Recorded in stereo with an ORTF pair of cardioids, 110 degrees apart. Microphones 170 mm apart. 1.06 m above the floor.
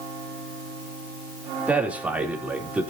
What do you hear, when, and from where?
1.7 s a man speaking: 10° right, 3 m